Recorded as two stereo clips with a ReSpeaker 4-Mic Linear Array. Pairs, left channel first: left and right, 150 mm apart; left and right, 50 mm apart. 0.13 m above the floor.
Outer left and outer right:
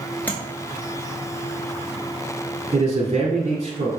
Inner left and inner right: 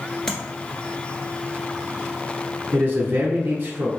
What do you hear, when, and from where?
0.3 s tapping: 10° left (ahead or behind), 1.6 m
2.7 s a man speaking: 40° right (ahead or behind), 1.3 m